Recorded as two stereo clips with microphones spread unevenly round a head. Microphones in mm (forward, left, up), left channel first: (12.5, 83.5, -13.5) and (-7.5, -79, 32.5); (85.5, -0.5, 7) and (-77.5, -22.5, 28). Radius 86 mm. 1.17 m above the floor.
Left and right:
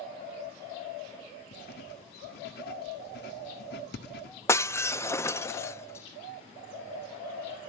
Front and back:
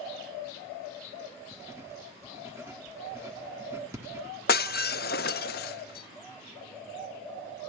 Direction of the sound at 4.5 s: 5° right.